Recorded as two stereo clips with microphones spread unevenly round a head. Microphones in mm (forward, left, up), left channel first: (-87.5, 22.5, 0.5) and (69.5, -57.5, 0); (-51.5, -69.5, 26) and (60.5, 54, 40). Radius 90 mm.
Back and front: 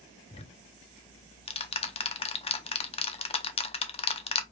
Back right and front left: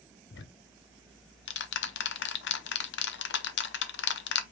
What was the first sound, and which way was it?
Ticking, 150° right.